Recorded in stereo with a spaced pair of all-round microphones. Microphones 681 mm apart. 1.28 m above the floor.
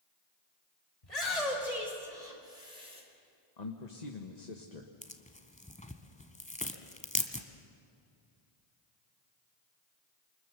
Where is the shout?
65° left (ahead or behind), 6 m; by 3.0 s 55° left (ahead or behind), 5.5 m.